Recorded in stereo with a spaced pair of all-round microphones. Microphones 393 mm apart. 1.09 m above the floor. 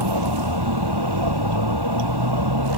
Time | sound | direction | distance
0.0 | a vehicle | 75° right (ahead or behind) | ?